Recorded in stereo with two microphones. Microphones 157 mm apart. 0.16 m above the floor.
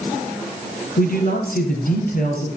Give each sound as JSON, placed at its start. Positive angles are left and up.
{"t": 1.0, "sound": "a man speaking", "side_deg": 70, "distance_m": 3.5}